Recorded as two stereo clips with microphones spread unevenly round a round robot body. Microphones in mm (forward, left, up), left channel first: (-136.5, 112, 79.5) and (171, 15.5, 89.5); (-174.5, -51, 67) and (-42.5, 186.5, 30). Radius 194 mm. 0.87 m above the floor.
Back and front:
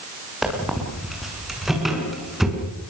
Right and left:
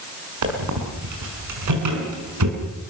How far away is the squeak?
About 6 m.